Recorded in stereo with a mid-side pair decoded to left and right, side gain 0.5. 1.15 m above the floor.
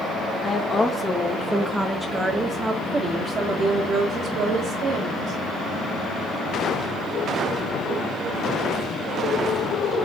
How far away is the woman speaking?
About 1.5 m.